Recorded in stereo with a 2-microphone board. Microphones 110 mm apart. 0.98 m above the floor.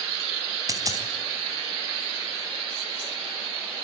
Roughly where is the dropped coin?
Right.